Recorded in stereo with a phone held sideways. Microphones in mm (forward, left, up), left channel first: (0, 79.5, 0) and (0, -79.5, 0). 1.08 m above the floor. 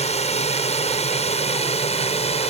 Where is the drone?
40° left (ahead or behind).